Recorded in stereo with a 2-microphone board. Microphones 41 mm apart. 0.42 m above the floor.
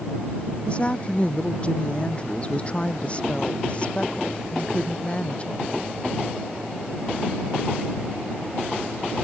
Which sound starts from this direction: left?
A woman speaking, at 0.7 s.